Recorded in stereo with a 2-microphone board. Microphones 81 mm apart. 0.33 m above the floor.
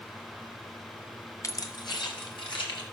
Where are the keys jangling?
40° left (ahead or behind), 0.8 m; by 2.8 s 75° left (ahead or behind), 3 m.